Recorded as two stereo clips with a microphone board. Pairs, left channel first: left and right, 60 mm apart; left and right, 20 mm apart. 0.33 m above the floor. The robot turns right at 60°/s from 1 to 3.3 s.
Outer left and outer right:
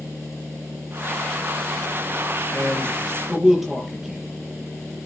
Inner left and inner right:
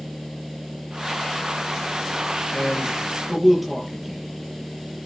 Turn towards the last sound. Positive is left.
turn(degrees=-5)  # may be behind; listen again after turning